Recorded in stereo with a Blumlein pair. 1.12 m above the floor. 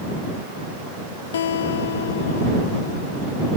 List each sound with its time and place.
1.3 s a guitar: 60° left